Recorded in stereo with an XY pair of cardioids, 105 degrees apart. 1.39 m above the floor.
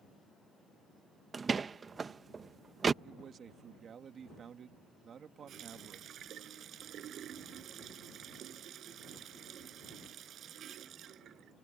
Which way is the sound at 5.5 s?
60° right.